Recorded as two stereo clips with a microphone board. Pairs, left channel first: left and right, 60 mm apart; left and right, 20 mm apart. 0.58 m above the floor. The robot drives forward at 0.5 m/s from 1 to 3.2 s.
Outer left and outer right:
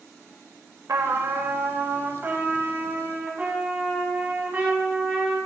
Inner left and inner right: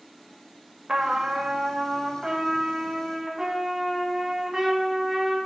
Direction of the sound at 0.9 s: 65° right (ahead or behind).